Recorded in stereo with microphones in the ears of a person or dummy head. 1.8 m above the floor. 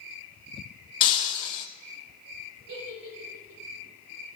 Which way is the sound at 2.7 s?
55° right (ahead or behind).